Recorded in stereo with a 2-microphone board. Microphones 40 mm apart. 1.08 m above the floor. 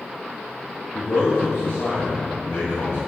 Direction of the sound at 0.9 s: 75° left (ahead or behind).